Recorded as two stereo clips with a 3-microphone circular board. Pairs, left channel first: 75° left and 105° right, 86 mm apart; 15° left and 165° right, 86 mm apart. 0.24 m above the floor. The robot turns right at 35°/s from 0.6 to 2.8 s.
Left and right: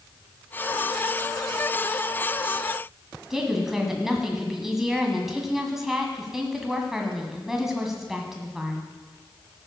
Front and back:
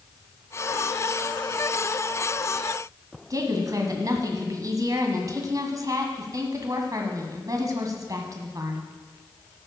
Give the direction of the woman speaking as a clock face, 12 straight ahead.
6 o'clock.